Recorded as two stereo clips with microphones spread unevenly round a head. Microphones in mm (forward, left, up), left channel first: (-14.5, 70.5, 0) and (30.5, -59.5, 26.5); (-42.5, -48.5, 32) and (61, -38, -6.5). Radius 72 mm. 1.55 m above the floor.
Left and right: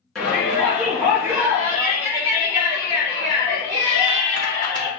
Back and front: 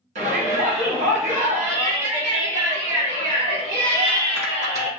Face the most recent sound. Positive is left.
turn(degrees=-15)